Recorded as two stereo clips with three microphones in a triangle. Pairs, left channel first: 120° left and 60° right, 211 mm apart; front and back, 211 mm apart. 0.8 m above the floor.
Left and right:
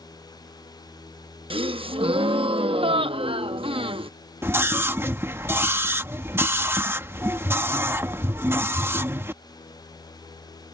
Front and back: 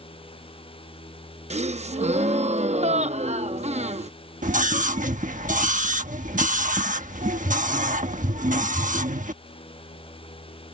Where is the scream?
140° right.